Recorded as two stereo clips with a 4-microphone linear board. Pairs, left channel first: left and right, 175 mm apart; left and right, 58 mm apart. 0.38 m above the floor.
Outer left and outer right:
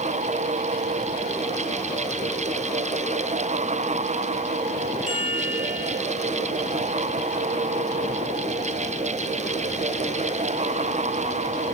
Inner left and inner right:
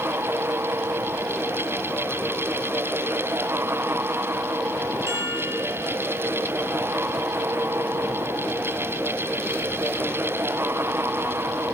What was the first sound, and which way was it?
A chime, 50° right (ahead or behind).